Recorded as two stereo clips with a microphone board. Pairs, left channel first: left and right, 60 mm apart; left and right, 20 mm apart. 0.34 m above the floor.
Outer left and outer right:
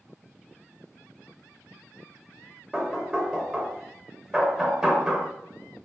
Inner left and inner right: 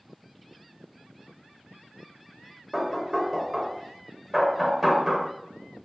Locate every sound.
2.7 s knocking: 10° right (ahead or behind), 0.8 m